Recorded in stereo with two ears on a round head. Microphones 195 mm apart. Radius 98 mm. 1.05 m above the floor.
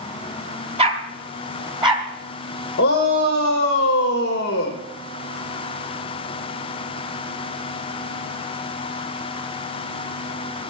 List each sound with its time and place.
0.8 s a dog barking: 30° right (ahead or behind), 1.9 m; by 2.0 s 20° right (ahead or behind), 3 m
2.8 s a shout: 50° left (ahead or behind), 1.6 m